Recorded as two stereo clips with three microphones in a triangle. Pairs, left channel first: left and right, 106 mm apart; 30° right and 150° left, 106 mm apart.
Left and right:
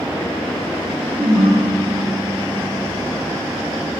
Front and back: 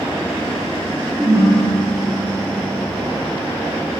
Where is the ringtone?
145° right, 3.5 m.